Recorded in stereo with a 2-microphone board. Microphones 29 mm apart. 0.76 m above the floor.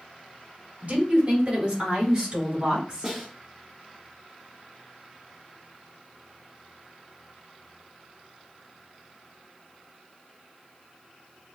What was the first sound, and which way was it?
A woman speaking, 45° right (ahead or behind).